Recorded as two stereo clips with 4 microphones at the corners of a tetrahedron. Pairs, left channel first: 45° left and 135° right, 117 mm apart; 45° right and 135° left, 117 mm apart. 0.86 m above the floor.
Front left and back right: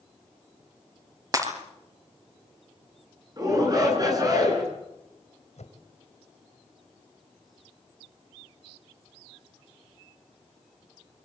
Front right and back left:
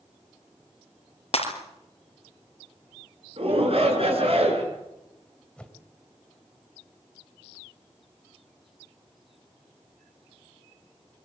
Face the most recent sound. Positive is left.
turn(degrees=35)